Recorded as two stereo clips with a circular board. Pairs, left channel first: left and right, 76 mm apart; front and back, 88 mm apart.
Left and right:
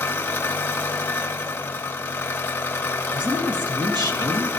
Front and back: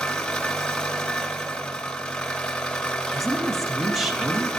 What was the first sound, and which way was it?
An engine running, 70° left.